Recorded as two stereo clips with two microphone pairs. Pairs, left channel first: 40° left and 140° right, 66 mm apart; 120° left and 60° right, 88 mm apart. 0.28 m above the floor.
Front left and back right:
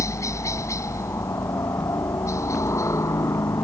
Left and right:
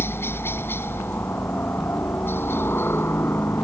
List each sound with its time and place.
0.0 s a helicopter: 65° left